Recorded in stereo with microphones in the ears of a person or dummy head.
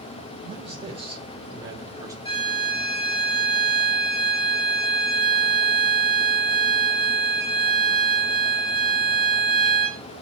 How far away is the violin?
About 3.5 m.